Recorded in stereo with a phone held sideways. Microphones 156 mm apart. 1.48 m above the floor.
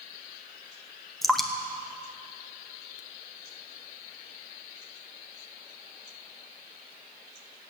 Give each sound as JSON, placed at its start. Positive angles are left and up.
{"t": 1.2, "sound": "dripping", "side_deg": 0, "distance_m": 1.1}